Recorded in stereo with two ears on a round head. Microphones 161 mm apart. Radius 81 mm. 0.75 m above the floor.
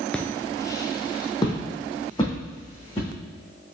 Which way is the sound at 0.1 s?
5° left (ahead or behind).